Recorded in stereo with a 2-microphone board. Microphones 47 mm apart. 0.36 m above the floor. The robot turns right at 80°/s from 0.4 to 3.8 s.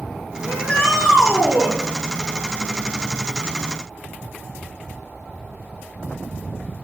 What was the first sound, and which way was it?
A shout, 130° left.